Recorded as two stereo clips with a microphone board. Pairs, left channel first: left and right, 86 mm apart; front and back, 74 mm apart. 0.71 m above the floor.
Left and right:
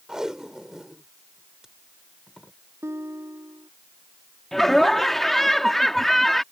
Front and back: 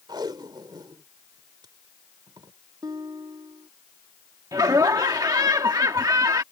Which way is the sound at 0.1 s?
175° right.